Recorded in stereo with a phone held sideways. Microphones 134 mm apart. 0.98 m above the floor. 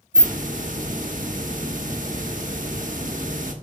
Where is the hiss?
75° right (ahead or behind), 1.0 m.